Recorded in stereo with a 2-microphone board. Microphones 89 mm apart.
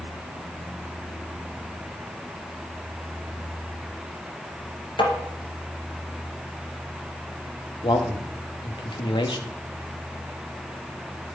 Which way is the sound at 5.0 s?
65° left (ahead or behind).